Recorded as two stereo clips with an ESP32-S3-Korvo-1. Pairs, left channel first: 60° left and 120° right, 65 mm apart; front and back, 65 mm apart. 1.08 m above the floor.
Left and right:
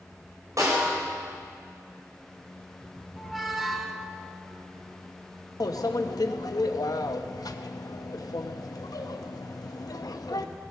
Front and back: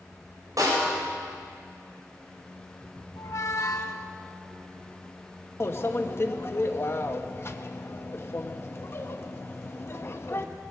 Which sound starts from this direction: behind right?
A snare drum, at 0.6 s.